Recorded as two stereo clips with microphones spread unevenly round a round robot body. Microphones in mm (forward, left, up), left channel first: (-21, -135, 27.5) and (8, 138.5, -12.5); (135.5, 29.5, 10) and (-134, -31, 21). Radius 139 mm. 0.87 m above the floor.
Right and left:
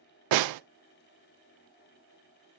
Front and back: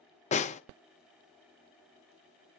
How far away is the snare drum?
About 0.6 m.